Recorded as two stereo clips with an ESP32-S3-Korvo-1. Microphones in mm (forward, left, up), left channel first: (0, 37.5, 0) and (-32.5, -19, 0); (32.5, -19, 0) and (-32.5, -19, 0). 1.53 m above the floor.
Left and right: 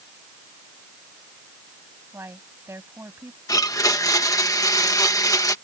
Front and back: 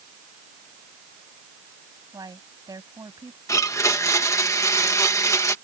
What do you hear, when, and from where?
2.1 s a woman speaking: 170° right
3.5 s a blender: 35° left